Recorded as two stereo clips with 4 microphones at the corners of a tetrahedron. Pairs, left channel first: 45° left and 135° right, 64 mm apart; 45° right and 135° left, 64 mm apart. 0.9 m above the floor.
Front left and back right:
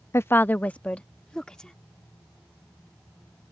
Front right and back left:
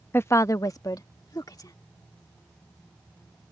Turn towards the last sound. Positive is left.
turn(degrees=-35)